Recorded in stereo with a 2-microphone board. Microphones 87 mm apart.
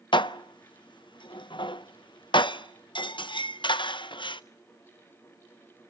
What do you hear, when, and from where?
0.1 s dishes clattering: 65° left (ahead or behind), 0.5 m